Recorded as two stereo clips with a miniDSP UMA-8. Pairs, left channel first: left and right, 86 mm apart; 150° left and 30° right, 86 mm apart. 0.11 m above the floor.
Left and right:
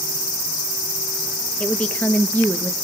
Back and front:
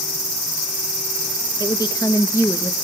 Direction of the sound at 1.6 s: 165° left.